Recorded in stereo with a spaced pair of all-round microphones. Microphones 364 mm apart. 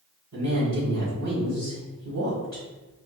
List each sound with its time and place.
0.3 s a woman speaking: 45° right (ahead or behind), 1.8 m